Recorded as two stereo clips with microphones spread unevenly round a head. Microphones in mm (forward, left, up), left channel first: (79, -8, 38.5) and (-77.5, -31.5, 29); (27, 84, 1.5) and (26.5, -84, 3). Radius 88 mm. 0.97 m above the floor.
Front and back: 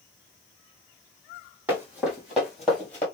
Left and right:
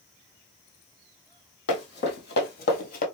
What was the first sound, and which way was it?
Running footsteps, 105° left.